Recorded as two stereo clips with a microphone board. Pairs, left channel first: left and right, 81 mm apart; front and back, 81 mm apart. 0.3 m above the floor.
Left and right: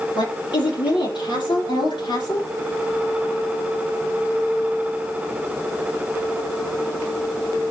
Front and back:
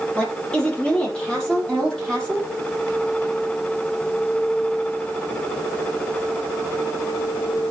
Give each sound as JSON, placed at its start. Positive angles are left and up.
{"t": 0.1, "sound": "a woman speaking", "azimuth_deg": 75, "distance_m": 7.0}